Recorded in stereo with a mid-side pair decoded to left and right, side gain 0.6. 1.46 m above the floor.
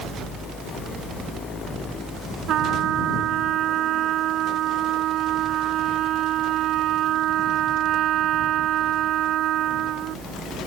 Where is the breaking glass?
I don't hear breaking glass.